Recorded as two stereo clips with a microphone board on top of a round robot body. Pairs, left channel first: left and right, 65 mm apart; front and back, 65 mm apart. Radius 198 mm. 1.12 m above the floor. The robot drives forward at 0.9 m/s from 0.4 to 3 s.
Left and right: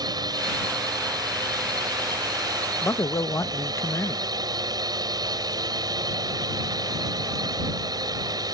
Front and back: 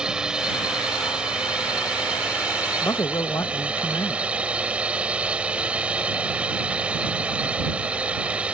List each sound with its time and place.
0.0 s a drone: 100° right; by 8.5 s 110° right
2.8 s a man speaking: 45° left; by 4.3 s 50° left